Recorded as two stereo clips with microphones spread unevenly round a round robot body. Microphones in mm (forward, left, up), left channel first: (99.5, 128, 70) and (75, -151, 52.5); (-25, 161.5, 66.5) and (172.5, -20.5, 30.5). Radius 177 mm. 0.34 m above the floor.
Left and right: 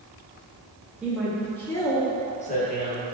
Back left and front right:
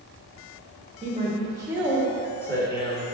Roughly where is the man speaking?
Ahead.